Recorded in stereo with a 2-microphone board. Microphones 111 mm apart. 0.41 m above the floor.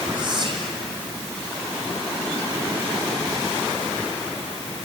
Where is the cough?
No cough in this recording.